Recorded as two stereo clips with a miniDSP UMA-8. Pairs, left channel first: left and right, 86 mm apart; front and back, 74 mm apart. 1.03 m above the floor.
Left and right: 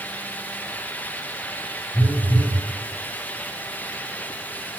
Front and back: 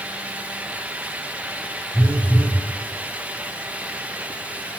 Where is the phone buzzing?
100° left, 7 m.